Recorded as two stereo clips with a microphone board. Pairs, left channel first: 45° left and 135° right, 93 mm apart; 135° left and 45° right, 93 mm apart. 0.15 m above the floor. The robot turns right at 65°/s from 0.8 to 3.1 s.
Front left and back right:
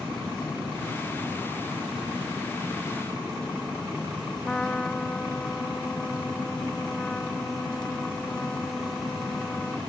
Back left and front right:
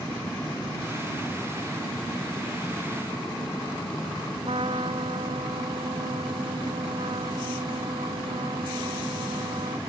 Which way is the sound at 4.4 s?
35° right.